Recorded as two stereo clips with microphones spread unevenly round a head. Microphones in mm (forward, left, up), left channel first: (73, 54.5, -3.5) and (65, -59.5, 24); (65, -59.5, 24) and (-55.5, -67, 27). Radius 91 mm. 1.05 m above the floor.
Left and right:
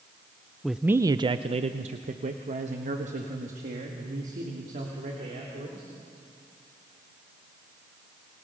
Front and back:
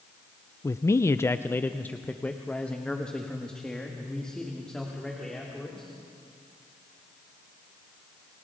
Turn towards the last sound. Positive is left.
turn(degrees=-80)